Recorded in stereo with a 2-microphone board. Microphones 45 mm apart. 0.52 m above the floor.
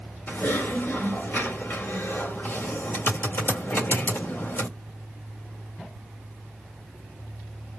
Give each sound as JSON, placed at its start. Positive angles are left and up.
{"t": 0.3, "sound": "typing on a keyboard", "side_deg": 55, "distance_m": 1.9}